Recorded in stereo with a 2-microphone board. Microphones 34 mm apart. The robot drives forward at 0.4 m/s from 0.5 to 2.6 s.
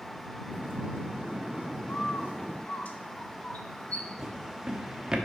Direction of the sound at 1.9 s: 50° left (ahead or behind).